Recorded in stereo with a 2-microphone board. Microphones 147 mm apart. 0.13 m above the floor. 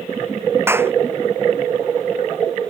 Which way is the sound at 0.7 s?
15° right (ahead or behind).